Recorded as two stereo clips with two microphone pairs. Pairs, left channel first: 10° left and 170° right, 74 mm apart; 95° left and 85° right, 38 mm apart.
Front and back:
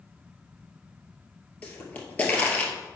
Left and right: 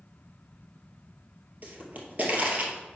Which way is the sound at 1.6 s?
55° right.